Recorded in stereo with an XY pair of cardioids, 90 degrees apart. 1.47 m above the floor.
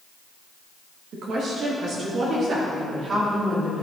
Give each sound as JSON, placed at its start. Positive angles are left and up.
{"t": 1.1, "sound": "a woman speaking", "azimuth_deg": -65, "distance_m": 2.5}